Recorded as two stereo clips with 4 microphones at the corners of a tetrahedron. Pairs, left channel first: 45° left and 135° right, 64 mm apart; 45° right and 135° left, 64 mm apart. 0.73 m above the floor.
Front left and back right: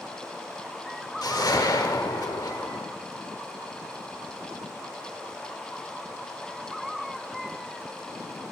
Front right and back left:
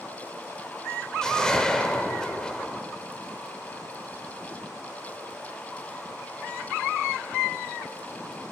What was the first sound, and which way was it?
A whoosh, 35° left.